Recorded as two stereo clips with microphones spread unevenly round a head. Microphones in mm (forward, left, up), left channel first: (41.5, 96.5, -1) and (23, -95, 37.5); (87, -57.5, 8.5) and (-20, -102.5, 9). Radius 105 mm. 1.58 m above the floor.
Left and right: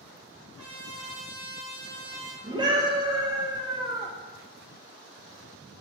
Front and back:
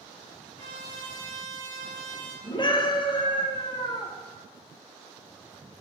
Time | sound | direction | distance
0.6 | a trumpet | 130° right | 3 m
2.4 | a scream | 30° right | 1.4 m